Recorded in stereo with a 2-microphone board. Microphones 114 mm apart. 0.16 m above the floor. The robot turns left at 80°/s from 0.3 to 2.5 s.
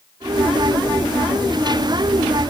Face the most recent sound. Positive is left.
No sound to turn to.